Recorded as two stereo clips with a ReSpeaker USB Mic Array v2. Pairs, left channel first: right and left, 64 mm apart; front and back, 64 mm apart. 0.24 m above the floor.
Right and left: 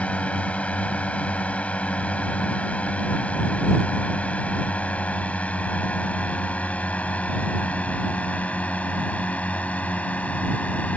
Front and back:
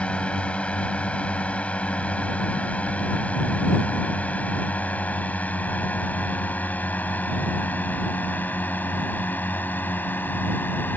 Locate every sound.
0.0 s a drone: 50° right; by 11.0 s 35° right